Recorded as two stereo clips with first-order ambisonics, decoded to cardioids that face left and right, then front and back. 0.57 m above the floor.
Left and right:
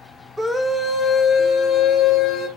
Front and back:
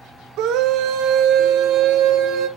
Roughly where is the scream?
Behind.